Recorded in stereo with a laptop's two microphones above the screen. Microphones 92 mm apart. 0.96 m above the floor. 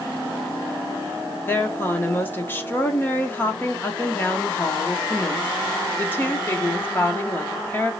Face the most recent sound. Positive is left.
turn(degrees=20)  # may be behind; listen again after turning